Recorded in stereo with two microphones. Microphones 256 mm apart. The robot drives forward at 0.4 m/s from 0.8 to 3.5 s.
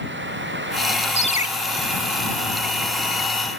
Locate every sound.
1.2 s a ringtone: 25° left (ahead or behind), 0.9 m; by 1.5 s 30° left (ahead or behind), 0.9 m